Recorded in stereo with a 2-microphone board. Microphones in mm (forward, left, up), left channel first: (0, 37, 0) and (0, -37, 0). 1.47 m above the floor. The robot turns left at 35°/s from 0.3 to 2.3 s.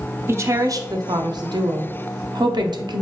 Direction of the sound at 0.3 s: 35° right.